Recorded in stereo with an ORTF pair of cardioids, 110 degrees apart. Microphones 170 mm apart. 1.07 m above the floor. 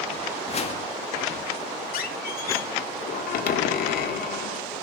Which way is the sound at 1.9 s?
60° left.